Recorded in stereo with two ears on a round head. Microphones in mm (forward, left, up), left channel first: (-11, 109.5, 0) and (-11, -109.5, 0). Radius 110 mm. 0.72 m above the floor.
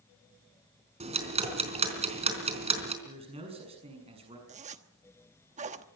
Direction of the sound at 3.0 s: 25° right (ahead or behind).